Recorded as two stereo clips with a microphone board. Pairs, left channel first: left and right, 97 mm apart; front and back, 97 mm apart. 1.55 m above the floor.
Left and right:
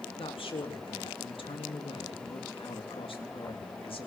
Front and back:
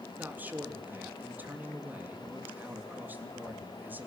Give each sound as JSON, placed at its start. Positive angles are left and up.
{"t": 0.2, "sound": "a man speaking", "azimuth_deg": 110, "distance_m": 3.5}